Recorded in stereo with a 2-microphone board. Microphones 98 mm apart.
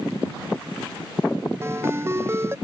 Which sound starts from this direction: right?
A ringtone, at 1.6 s.